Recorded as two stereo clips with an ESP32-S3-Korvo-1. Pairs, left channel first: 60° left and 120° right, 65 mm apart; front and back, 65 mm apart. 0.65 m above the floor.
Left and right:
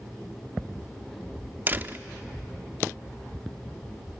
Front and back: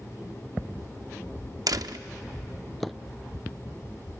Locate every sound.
1.7 s a door slam: straight behind, 0.6 m